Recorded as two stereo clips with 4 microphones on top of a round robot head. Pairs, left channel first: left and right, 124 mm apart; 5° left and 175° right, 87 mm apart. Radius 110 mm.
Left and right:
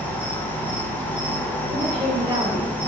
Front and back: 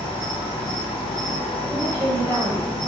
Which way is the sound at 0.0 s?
15° left.